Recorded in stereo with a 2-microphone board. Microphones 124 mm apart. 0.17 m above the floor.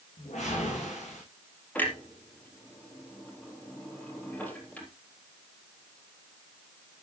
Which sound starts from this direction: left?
A whoosh, at 0.2 s.